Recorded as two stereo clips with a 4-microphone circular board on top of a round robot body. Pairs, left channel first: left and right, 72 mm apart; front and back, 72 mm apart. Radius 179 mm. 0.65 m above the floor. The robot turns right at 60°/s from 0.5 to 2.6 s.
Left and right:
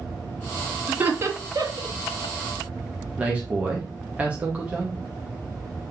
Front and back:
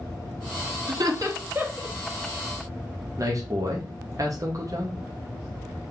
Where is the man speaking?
160° right, 1.1 m.